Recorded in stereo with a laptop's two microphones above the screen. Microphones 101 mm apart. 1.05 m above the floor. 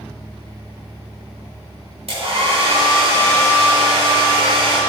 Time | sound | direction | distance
2.1 | a hair dryer | 75° right (ahead or behind) | 4 m